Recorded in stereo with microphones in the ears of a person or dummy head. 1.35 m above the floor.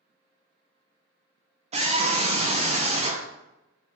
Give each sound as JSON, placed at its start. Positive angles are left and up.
{"t": 1.7, "sound": "a scream", "side_deg": -25, "distance_m": 0.9}